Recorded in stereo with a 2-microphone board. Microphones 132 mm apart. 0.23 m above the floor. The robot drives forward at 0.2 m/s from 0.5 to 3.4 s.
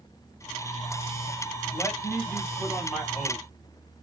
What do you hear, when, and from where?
1.7 s a man speaking: 5° left (ahead or behind), 1.2 m